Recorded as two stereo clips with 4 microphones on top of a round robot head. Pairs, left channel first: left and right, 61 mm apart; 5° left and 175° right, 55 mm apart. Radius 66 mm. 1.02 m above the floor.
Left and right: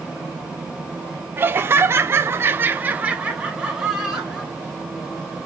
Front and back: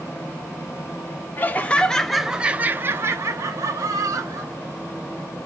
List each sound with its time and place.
1.4 s laughter: 40° right, 0.7 m; by 4.5 s 170° right, 1.3 m